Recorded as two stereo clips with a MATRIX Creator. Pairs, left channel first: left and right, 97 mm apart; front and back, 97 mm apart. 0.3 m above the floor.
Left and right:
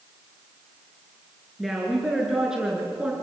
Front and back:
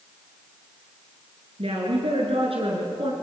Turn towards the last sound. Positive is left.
turn(degrees=-170)